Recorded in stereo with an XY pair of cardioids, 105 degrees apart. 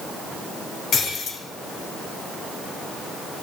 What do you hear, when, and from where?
0.9 s breaking glass: 60° left, 5 m